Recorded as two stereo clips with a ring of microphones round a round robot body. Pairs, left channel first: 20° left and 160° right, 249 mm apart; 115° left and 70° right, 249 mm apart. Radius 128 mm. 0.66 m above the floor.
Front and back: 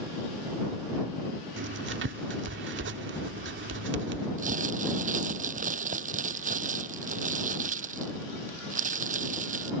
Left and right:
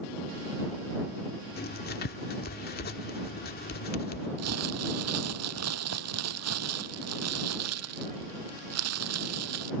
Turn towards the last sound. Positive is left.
turn(degrees=-95)